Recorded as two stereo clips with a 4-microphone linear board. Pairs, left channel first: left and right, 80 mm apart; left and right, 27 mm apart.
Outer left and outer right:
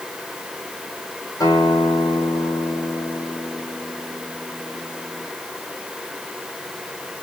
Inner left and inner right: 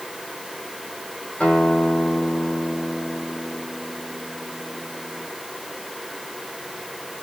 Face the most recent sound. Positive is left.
turn(degrees=60)  # may be behind; listen again after turning